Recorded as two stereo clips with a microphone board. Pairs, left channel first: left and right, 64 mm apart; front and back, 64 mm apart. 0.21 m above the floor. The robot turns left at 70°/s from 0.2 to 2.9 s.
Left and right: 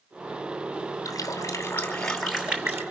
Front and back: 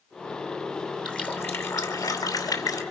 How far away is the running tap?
About 2.5 m.